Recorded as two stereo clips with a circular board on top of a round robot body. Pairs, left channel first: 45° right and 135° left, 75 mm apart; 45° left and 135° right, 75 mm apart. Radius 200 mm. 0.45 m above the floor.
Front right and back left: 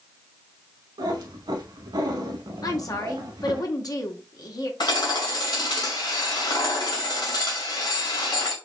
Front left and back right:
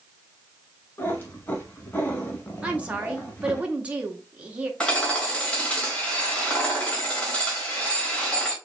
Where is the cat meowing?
110° left, 0.7 m.